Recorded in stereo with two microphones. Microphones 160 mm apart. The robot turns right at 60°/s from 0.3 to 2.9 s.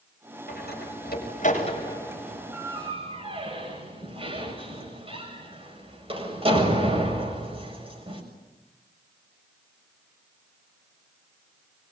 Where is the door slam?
70° left (ahead or behind), 7 m; by 8.2 s 35° right (ahead or behind), 7 m.